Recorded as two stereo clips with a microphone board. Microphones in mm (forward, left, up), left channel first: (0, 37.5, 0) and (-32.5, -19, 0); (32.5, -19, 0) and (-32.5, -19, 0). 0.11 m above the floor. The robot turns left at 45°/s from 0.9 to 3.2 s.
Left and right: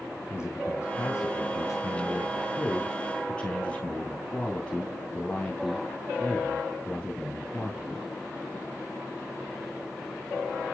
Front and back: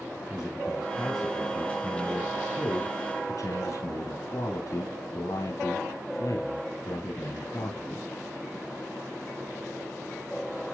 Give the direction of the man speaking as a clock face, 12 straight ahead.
9 o'clock.